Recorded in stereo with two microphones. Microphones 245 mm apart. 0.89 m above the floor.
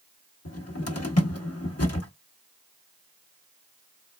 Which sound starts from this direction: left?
A cupboard door, at 0.5 s.